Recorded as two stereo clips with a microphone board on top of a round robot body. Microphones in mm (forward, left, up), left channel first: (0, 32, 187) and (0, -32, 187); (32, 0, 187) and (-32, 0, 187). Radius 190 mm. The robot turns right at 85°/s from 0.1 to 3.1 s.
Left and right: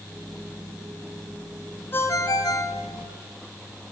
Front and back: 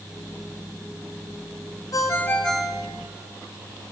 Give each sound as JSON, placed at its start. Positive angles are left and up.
{"t": 1.9, "sound": "a ringtone", "azimuth_deg": 30, "distance_m": 2.0}